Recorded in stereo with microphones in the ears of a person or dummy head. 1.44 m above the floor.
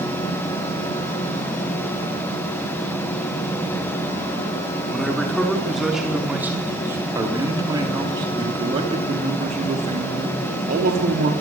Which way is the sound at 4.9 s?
5° left (ahead or behind).